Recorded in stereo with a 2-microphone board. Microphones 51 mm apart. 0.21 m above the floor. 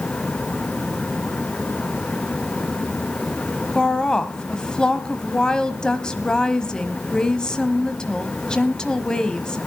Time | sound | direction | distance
3.8 | a woman speaking | 15° left (ahead or behind) | 1.1 m